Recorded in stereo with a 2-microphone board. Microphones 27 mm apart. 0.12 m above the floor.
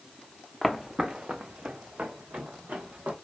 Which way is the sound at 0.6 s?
Centre (ahead or behind).